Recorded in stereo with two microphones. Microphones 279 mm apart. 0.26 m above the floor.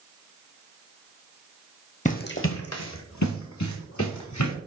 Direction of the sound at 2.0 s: 25° left (ahead or behind).